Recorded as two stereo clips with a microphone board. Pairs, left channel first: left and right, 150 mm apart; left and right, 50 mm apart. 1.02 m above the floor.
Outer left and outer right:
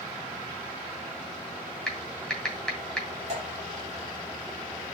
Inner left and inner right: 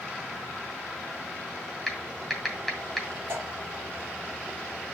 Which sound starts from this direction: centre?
Typing on a keyboard, at 1.9 s.